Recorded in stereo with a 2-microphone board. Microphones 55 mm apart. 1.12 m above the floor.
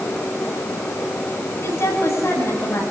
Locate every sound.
1.6 s a woman speaking: 55° left (ahead or behind), 8.5 m